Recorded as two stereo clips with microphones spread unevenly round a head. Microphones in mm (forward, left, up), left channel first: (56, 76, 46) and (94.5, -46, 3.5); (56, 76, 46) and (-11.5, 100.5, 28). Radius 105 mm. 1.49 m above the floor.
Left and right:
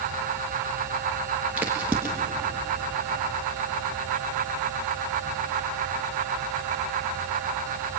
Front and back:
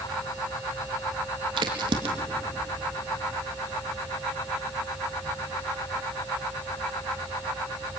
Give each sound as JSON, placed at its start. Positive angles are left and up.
{"t": 1.6, "sound": "a crack", "azimuth_deg": -160, "distance_m": 1.7}